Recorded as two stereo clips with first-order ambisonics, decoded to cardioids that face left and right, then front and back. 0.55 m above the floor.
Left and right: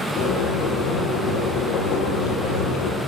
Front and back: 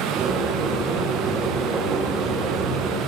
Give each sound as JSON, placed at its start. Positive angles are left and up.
{"t": 0.2, "sound": "boiling", "azimuth_deg": 115, "distance_m": 9.5}